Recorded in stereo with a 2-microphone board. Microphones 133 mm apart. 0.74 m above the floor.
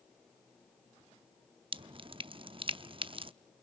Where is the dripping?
40° right (ahead or behind), 0.5 m.